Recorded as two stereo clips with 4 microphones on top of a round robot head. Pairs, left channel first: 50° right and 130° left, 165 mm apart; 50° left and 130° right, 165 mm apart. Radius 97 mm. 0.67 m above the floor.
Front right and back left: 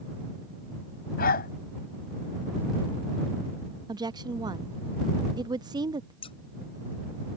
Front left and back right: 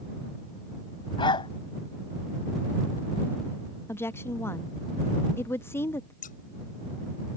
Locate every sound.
1.2 s a dog barking: 15° right
3.9 s a woman speaking: 105° left
6.2 s scissors: 10° left